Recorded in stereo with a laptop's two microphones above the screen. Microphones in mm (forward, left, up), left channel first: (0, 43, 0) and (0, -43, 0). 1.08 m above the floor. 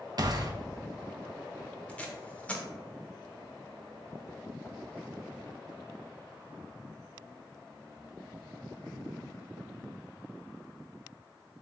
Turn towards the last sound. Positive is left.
turn(degrees=15)  # may be behind; listen again after turning